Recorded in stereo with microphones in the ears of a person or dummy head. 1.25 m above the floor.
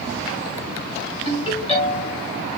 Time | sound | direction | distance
1.2 | a ringtone | 40° left (ahead or behind) | 4.5 m